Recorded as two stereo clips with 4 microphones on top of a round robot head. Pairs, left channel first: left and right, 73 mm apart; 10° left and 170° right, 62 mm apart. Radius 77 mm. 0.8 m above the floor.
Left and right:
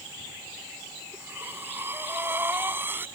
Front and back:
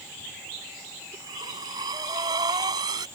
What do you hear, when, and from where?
1.1 s breathing: 155° right